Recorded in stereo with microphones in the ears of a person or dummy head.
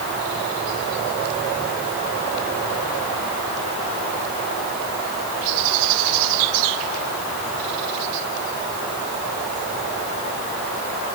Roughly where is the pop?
No pop in this recording.